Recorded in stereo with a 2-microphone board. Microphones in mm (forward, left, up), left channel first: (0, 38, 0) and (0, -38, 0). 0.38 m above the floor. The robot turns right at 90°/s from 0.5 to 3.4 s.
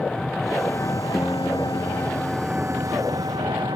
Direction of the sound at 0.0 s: 10° left.